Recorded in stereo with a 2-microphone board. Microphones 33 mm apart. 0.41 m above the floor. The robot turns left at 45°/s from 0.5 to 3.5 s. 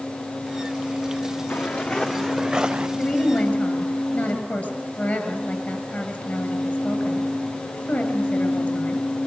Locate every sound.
1.5 s footsteps: 60° left (ahead or behind), 2.5 m; by 2.9 s 35° right (ahead or behind), 2 m
3.0 s a woman speaking: 30° left (ahead or behind), 8 m; by 9.1 s 55° left (ahead or behind), 8 m